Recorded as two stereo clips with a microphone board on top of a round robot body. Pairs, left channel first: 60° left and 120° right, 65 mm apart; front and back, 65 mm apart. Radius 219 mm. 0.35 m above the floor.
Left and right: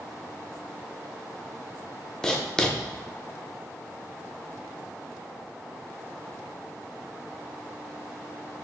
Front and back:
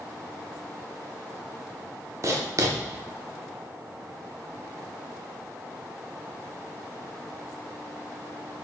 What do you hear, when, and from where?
2.2 s writing: 140° left, 0.7 m